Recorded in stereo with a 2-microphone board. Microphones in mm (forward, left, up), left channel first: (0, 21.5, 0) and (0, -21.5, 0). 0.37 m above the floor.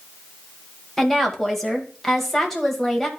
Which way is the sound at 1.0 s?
10° left (ahead or behind).